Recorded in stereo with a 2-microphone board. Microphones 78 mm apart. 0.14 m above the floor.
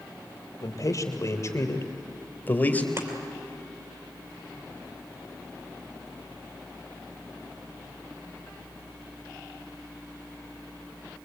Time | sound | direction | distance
0.6 | a man speaking | 50° left (ahead or behind) | 3 m
3.0 | chopping | 35° right (ahead or behind) | 3 m